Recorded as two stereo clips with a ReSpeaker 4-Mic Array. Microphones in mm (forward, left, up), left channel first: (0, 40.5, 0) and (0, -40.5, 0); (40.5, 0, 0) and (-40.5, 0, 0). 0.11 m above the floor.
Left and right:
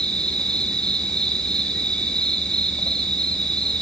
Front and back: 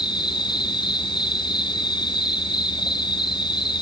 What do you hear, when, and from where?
0.0 s an insect: 10° left, 1.1 m